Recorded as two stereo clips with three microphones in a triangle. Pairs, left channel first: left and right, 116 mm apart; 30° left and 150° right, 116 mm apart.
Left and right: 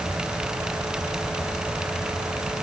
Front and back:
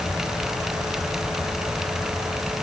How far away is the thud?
No thud in this recording.